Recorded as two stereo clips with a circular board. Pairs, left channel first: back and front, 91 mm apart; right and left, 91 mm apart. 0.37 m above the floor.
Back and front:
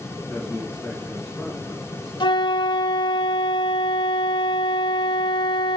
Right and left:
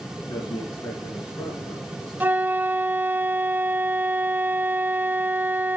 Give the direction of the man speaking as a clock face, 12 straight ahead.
4 o'clock.